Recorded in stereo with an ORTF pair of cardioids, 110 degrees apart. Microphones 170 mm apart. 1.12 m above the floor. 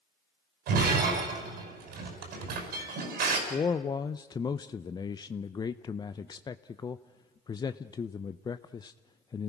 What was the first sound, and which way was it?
Breaking glass, 70° right.